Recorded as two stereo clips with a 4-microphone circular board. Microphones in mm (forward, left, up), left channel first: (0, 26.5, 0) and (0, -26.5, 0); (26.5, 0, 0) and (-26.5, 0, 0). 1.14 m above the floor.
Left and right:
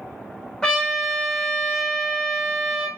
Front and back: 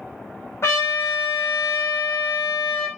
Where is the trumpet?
25° left, 1.0 m.